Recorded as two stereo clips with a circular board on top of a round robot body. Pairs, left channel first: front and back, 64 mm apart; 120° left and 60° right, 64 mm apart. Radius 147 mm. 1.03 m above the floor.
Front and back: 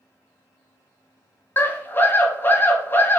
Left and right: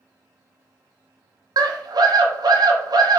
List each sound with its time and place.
1.6 s a scream: 60° right, 1.0 m